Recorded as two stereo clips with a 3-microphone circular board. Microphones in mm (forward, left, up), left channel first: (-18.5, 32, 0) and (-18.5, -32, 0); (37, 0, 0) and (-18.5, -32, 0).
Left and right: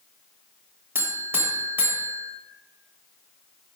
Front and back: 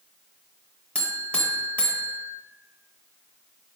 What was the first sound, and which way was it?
A buzzer, 40° right.